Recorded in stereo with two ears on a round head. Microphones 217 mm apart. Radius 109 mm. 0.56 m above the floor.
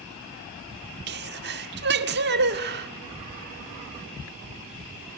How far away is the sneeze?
About 1.6 m.